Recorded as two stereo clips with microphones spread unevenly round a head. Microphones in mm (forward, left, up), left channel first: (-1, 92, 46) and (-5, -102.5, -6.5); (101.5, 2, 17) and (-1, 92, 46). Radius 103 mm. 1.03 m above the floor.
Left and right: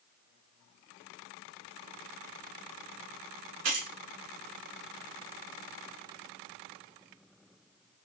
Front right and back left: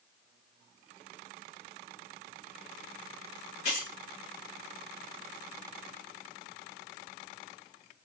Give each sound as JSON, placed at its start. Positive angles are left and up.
{"t": 3.6, "sound": "keys jangling", "azimuth_deg": -95, "distance_m": 0.8}